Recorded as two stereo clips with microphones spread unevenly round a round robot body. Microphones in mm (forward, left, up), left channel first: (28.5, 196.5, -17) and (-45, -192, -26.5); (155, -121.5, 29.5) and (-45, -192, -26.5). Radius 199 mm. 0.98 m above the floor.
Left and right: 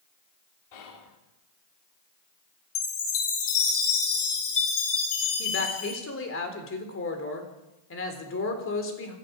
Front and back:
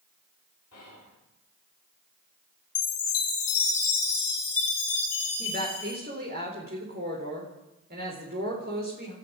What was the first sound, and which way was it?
Whispering, 75° left.